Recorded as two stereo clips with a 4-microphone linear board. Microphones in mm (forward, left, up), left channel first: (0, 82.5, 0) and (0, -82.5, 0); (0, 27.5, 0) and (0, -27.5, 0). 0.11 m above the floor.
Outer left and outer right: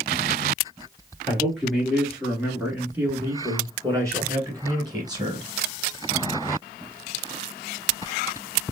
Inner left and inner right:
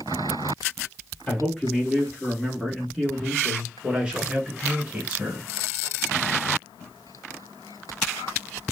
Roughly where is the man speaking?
Centre.